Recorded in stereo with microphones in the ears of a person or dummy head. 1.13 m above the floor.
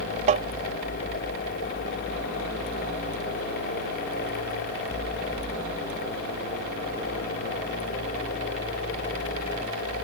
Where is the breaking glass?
I don't hear breaking glass.